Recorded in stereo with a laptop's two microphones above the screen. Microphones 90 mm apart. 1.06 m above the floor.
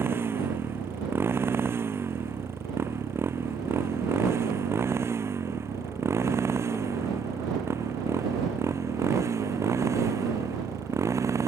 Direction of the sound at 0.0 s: 25° right (ahead or behind).